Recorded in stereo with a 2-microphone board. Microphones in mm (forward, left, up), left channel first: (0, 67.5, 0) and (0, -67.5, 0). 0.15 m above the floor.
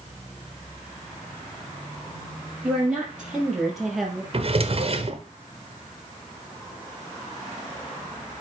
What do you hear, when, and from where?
2.6 s a woman speaking: 10° right (ahead or behind), 5 m; by 4.2 s 5° left (ahead or behind), 3 m
4.3 s a drawer: 45° right (ahead or behind), 0.9 m